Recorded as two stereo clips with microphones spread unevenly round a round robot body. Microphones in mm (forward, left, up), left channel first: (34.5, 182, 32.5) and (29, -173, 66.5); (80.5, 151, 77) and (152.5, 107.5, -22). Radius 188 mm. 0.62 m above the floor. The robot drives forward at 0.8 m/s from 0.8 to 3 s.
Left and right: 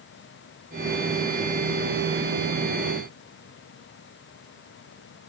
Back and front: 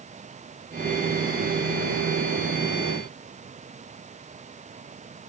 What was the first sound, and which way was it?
Only background noise.